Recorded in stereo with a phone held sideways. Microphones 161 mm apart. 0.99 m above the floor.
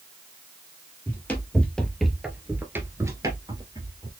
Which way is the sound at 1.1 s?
15° left (ahead or behind).